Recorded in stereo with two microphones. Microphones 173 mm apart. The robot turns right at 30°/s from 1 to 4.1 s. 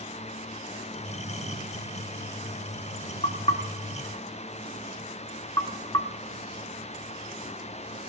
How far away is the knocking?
About 1.0 m.